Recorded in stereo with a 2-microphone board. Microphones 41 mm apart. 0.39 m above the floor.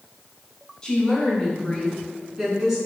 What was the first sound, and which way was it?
A woman speaking, 20° left (ahead or behind).